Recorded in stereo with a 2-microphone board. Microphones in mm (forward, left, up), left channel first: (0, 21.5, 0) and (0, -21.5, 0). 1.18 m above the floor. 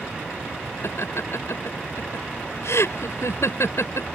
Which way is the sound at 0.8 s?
80° left.